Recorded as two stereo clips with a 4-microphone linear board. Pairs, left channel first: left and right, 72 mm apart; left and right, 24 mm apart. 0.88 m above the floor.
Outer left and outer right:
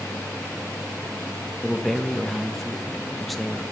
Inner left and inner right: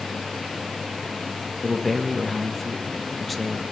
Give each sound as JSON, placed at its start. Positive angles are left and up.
{"t": 1.6, "sound": "a man speaking", "side_deg": 0, "distance_m": 0.7}